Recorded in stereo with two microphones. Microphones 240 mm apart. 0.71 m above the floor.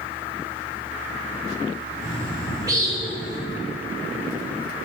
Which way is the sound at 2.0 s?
15° right (ahead or behind).